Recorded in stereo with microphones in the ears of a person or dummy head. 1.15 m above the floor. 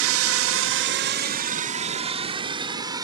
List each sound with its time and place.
0.0 s a drone: 65° right (ahead or behind); by 3.0 s 15° right (ahead or behind)